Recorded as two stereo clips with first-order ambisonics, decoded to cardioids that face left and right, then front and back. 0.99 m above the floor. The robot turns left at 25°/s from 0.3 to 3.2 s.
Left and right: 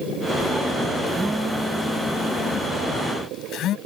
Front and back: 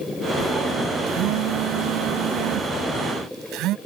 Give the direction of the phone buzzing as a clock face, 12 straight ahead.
6 o'clock.